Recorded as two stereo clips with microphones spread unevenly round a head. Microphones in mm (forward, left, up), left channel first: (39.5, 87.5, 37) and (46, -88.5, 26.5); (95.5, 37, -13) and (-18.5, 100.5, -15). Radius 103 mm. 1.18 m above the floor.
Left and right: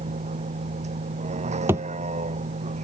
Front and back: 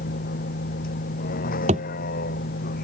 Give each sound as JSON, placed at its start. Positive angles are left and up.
{"t": 0.0, "sound": "a vehicle", "azimuth_deg": -35}
{"t": 1.7, "sound": "a thud", "azimuth_deg": -170}